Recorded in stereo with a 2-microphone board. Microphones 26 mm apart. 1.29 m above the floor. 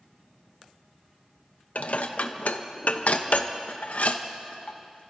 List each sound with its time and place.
1.8 s dishes clattering: 70° left (ahead or behind), 0.8 m